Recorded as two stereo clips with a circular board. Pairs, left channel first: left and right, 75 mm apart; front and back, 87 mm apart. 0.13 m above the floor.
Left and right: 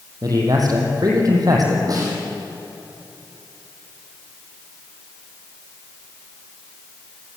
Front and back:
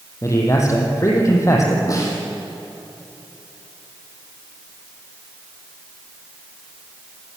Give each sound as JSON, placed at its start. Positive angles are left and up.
{"t": 0.2, "sound": "a man speaking", "azimuth_deg": -55, "distance_m": 5.5}
{"t": 1.9, "sound": "a snare drum", "azimuth_deg": -50, "distance_m": 6.5}